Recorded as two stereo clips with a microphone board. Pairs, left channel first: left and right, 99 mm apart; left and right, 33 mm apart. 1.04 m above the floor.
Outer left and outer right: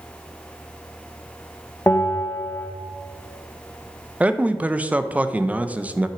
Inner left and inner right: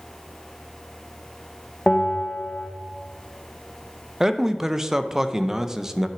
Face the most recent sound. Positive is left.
turn(degrees=-15)  # may be behind; listen again after turning